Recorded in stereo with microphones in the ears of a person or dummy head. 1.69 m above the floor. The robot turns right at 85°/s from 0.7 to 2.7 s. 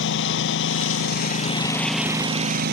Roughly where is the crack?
I don't hear a crack.